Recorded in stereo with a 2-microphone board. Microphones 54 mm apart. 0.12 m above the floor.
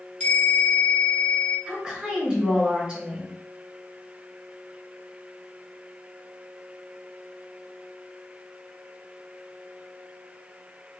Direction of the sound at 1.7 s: 15° right (ahead or behind).